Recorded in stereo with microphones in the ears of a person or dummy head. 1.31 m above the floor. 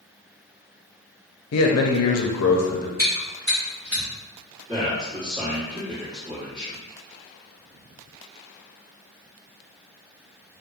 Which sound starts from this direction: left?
A man speaking, at 1.5 s.